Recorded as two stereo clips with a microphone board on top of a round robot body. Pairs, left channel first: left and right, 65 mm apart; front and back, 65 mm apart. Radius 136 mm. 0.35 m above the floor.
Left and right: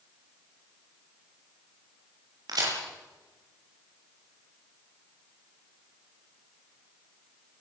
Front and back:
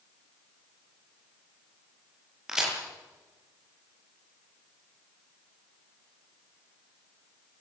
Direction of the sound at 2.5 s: 100° right.